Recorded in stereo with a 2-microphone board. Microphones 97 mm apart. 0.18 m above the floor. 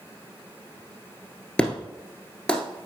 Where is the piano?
No piano in this recording.